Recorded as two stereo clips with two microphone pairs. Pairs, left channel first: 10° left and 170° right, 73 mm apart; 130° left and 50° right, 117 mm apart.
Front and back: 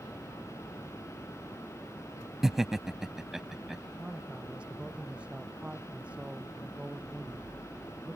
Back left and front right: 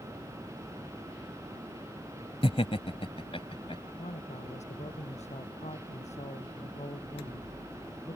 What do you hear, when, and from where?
2.4 s laughter: 110° left
4.0 s a man speaking: 115° left